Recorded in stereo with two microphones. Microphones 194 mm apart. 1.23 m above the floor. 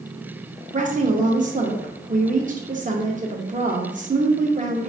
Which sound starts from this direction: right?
A woman speaking, at 0.7 s.